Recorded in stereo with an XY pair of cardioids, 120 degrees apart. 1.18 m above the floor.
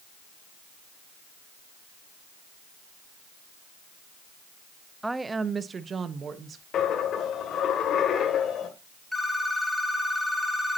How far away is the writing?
I don't hear writing.